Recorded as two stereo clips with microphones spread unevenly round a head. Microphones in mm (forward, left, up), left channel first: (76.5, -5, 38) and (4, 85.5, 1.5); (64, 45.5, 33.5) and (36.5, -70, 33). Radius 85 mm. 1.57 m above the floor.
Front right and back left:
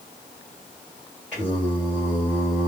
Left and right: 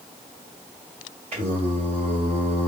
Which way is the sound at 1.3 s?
120° right.